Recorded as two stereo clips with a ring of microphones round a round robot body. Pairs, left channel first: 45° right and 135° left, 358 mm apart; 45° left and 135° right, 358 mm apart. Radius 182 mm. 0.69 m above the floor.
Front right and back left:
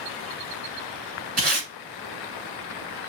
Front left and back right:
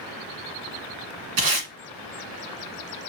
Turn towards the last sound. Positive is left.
turn(degrees=-160)